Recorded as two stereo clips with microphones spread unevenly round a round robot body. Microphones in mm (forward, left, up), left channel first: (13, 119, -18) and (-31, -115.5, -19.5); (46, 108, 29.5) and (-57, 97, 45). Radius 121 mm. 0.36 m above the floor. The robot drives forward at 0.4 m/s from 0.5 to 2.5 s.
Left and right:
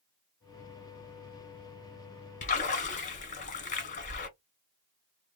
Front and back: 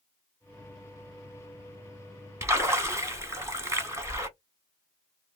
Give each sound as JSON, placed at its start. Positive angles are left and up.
{"t": 2.4, "sound": "a splash", "azimuth_deg": 125, "distance_m": 1.5}